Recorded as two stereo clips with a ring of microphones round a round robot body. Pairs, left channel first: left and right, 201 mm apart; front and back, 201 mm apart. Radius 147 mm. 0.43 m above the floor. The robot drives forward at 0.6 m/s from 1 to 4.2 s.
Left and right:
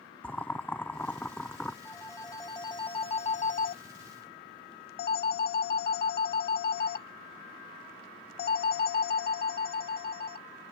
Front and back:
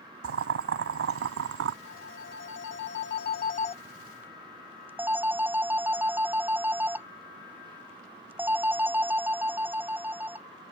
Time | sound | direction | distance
0.2 | boiling | 175° left | ?
1.9 | a phone ringing | 15° left | ?